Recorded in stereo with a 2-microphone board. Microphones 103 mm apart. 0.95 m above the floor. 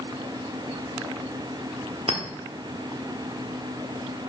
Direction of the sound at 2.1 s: 65° right (ahead or behind).